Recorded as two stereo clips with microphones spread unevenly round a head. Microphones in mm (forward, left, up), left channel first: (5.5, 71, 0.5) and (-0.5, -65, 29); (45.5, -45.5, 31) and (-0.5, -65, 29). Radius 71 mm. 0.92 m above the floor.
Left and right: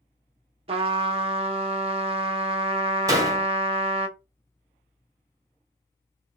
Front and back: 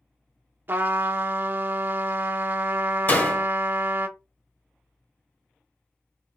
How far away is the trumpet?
About 0.7 m.